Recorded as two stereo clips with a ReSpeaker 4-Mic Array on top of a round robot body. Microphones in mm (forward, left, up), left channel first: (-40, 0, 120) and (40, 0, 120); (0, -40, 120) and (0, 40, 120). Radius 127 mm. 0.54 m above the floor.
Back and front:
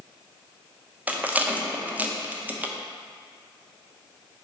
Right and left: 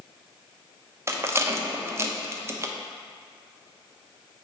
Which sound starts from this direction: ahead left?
A rattle, at 1.1 s.